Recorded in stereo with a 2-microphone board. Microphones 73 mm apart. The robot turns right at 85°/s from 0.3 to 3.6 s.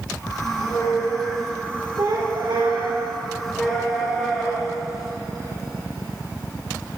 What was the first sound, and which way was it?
A squeak, 95° left.